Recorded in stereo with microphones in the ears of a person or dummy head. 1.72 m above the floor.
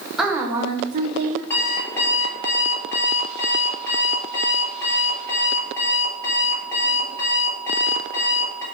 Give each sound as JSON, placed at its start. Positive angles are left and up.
{"t": 0.2, "sound": "a woman speaking", "side_deg": -5, "distance_m": 1.7}
{"t": 1.5, "sound": "an alarm clock", "side_deg": 15, "distance_m": 3.5}